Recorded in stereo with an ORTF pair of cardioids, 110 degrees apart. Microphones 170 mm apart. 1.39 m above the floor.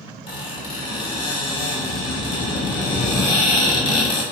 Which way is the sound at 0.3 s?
30° left.